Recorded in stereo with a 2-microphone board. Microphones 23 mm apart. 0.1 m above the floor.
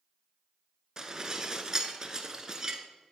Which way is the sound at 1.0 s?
20° right (ahead or behind).